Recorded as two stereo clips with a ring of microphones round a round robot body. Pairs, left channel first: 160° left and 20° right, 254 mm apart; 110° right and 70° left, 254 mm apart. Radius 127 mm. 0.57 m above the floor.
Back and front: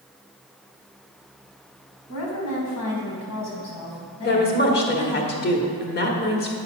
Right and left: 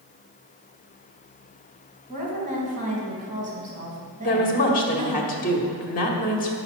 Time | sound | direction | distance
2.1 | a woman speaking | 130° left | 3.5 m
4.2 | a woman speaking | 160° right | 1.7 m